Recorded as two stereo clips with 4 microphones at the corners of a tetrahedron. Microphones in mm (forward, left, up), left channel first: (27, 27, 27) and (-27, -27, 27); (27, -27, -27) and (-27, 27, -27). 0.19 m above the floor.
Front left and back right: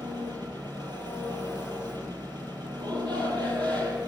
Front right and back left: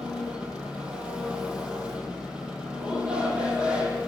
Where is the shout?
150° right, 6.5 m.